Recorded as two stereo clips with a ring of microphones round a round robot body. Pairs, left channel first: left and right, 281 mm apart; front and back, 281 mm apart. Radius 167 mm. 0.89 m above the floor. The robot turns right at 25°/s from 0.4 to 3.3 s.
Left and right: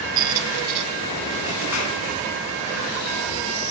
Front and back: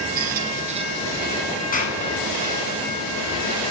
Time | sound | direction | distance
0.2 | a squeak | 120° right | 1.3 m
1.7 | a clap | 60° left | 8.5 m